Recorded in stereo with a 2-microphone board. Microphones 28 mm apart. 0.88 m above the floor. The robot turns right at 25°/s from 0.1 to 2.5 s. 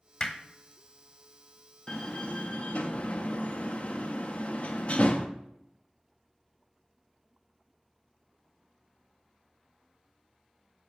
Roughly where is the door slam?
Left.